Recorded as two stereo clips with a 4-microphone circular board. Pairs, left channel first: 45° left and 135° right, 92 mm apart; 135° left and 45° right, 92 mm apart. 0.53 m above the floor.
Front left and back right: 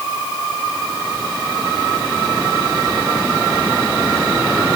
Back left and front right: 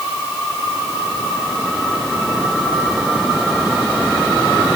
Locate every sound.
Only background noise.